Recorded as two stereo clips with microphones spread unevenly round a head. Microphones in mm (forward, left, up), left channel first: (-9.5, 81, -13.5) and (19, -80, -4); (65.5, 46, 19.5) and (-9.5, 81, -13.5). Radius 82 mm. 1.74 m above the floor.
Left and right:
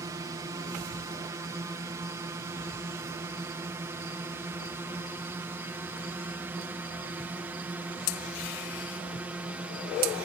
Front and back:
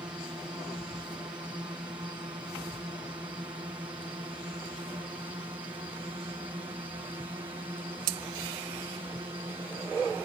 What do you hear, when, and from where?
0.0 s a drone: 145° right; by 10.3 s 160° right